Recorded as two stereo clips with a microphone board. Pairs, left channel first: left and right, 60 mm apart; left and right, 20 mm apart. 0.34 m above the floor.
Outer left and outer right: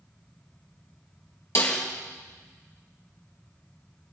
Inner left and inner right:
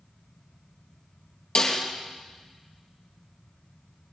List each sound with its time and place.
1.6 s a snare drum: 55° left (ahead or behind), 3.5 m